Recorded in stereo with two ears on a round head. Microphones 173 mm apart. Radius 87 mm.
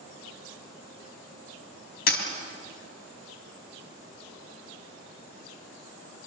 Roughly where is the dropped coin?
Left.